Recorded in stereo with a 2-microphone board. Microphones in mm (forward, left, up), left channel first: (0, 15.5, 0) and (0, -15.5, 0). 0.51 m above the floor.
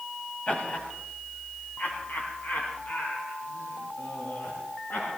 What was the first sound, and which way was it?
Laughter, 45° left (ahead or behind).